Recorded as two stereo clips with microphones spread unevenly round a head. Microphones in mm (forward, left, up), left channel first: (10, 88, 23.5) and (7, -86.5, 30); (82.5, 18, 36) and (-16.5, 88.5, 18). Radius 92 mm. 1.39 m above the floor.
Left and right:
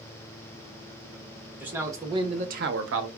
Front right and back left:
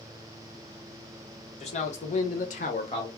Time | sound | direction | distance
1.6 | a man speaking | 10° right | 1.2 m